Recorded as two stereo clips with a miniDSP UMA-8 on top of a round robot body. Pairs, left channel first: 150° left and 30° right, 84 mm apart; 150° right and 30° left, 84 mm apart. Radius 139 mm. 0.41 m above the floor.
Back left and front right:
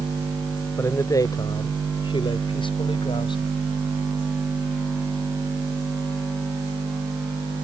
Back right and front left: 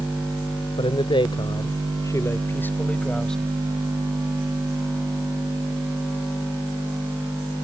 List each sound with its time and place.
0.8 s a man speaking: 150° right; by 3.5 s 125° left